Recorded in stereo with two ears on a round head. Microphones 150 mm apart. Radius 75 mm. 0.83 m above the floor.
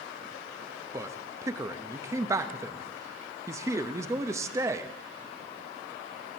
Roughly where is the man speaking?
Centre.